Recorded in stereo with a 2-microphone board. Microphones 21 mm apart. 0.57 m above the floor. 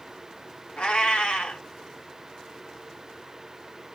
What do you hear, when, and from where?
0.8 s a cat meowing: 55° left (ahead or behind), 0.9 m